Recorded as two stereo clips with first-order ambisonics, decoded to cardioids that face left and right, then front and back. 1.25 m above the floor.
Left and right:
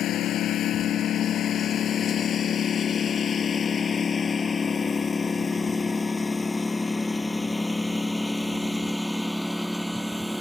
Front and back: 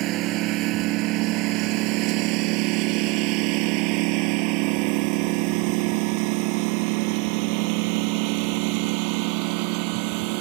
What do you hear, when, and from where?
0.0 s a lawn mower: 140° left; by 10.4 s 175° right